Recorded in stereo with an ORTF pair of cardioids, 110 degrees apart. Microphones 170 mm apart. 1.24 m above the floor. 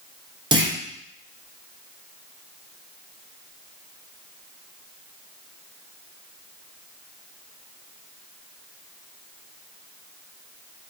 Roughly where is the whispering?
No whispering in this recording.